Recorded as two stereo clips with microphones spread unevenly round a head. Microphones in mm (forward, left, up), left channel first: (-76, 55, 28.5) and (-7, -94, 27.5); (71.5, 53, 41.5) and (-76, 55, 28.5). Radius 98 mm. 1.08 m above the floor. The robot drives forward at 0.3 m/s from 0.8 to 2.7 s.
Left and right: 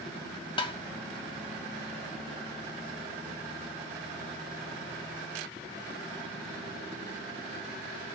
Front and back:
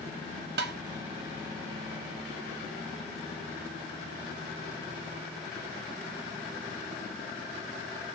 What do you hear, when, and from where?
0.6 s tapping: 175° left, 0.8 m